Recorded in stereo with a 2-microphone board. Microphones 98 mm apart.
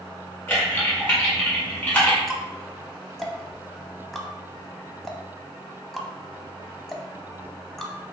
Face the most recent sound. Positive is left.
turn(degrees=5)  # may be behind; listen again after turning